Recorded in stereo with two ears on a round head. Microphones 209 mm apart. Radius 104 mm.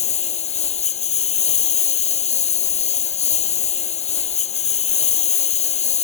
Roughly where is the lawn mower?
Left.